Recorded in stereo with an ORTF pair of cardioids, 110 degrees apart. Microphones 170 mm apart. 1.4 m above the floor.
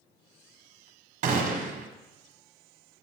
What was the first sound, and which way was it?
A gunshot, 55° right.